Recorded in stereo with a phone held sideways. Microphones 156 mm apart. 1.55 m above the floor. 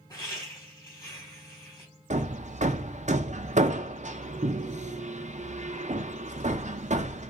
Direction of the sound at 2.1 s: 50° right (ahead or behind).